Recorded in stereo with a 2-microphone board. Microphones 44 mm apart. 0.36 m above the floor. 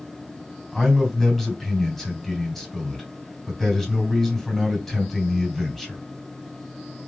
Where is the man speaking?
10° left (ahead or behind), 3 m.